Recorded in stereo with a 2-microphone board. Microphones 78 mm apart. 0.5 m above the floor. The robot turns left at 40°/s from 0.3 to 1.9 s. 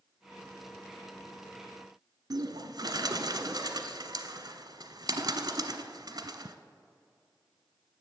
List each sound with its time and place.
2.3 s a bird: 60° right (ahead or behind), 0.9 m